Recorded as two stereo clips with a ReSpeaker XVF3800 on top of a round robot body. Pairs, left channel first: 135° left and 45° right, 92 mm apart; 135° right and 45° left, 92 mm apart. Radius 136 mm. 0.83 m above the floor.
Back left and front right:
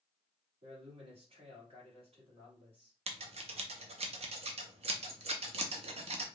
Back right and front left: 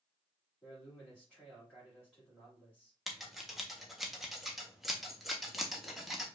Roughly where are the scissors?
Ahead right.